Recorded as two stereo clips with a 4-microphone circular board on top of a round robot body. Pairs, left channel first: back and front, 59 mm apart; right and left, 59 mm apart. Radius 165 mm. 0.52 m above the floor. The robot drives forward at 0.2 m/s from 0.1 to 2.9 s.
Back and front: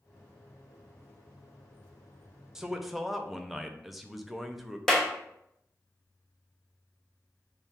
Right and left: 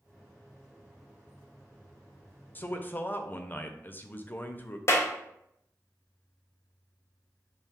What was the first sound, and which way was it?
A man speaking, 70° right.